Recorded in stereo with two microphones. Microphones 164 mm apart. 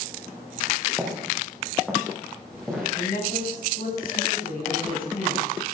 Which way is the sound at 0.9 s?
5° left (ahead or behind).